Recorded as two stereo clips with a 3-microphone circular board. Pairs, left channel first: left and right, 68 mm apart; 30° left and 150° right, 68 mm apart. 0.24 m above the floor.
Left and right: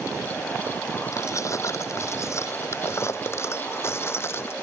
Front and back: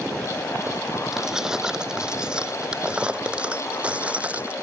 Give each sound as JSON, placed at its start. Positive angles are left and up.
{"t": 1.1, "sound": "keys jangling", "azimuth_deg": 130}